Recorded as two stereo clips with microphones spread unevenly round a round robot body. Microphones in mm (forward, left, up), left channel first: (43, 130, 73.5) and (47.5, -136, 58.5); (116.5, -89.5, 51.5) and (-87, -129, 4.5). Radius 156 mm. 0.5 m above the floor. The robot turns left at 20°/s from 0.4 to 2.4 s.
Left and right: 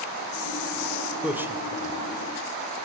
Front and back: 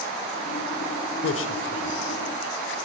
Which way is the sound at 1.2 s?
5° right.